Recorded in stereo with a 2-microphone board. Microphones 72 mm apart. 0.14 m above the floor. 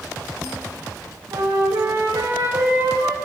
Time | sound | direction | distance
1.3 | a flute | 70° right (ahead or behind) | 4.5 m